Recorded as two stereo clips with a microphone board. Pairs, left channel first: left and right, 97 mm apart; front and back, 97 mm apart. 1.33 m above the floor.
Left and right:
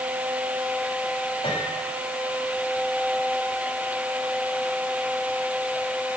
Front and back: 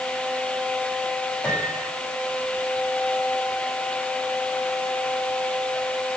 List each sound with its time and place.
1.4 s a piano: 75° left, 8.5 m